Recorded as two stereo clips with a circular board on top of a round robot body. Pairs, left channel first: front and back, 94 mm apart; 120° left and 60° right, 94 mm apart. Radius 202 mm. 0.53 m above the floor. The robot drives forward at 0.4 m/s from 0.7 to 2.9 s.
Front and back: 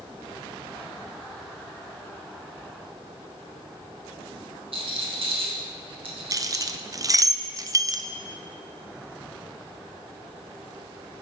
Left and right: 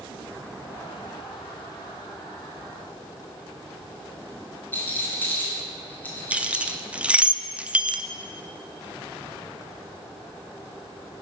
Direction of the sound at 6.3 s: 135° right.